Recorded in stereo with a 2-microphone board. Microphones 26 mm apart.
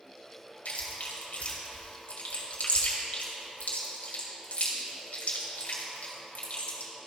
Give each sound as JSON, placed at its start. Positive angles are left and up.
{"t": 0.7, "sound": "chewing", "side_deg": 70, "distance_m": 1.8}